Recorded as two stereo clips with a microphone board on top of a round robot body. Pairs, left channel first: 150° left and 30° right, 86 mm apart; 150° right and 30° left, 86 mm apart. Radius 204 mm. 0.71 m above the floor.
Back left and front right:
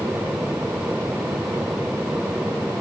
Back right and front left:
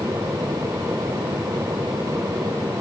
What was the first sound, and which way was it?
Only background noise.